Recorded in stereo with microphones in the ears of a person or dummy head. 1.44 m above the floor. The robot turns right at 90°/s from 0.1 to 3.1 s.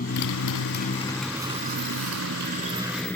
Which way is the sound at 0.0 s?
50° left (ahead or behind).